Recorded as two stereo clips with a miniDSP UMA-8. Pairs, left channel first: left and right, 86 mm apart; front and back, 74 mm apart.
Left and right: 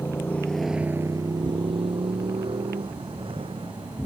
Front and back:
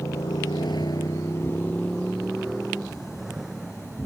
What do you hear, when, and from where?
0.0 s a motorcycle: 30° left; by 4.0 s 95° right